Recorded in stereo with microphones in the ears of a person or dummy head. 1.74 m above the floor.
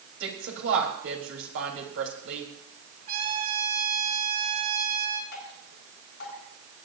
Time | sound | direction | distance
0.2 | a woman speaking | 85° right | 3.5 m
3.1 | a trumpet | 50° right (ahead or behind) | 3.5 m
5.3 | dripping | 60° left (ahead or behind) | 6.5 m